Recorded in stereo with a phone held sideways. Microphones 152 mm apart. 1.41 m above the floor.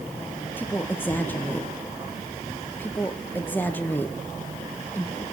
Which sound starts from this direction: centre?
A woman speaking, at 0.6 s.